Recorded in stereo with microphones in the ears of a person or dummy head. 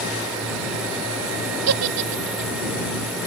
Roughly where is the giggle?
Right.